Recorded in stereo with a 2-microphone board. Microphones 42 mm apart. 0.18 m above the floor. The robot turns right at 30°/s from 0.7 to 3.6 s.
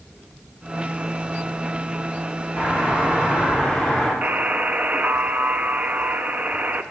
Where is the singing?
No singing in this recording.